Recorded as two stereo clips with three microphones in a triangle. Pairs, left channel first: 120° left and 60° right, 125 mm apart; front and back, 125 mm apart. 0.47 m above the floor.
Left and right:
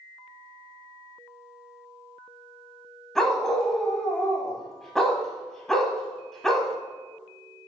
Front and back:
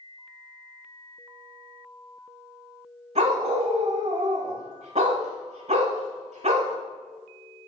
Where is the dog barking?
150° right, 1.0 m.